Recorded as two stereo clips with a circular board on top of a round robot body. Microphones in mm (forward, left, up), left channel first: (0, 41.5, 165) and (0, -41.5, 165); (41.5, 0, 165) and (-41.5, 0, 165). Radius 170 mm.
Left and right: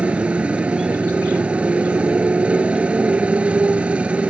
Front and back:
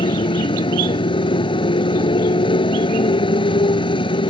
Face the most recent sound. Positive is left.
turn(degrees=-15)